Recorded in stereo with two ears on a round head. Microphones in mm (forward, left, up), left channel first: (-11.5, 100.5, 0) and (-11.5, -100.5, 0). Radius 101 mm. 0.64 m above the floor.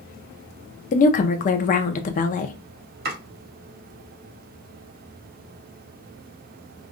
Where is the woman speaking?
35° left (ahead or behind), 0.6 m.